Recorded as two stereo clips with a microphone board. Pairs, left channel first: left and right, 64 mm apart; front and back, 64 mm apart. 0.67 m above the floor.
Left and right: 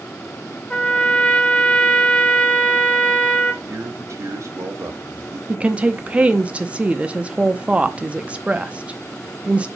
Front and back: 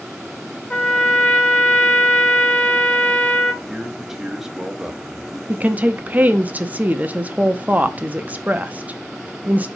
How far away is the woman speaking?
About 0.7 m.